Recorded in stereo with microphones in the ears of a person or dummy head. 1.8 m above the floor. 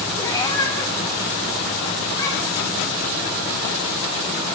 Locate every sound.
0.2 s a cat meowing: 20° left (ahead or behind), 1.4 m